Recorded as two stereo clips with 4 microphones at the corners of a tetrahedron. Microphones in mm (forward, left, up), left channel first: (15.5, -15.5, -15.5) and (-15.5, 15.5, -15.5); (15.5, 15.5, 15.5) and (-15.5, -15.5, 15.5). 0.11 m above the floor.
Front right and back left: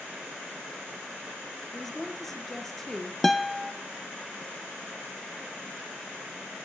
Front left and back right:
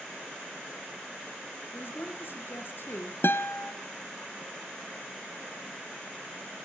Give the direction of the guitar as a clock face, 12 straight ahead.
11 o'clock.